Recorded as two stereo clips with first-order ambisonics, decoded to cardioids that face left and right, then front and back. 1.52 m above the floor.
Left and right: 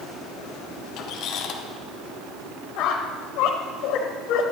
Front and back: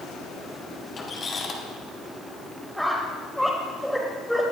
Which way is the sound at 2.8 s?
90° left.